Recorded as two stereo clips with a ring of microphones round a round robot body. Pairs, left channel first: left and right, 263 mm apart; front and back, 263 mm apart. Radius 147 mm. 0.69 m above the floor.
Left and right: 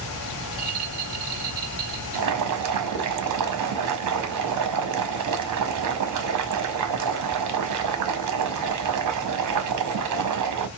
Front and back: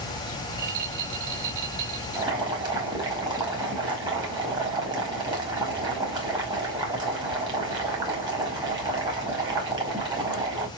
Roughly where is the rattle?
Behind right.